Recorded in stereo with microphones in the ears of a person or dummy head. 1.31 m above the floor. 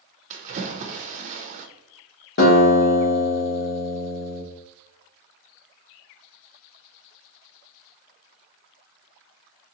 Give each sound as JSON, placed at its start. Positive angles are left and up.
{"t": 0.3, "sound": "a splash", "side_deg": -45, "distance_m": 0.5}
{"t": 2.4, "sound": "a guitar", "side_deg": 55, "distance_m": 1.1}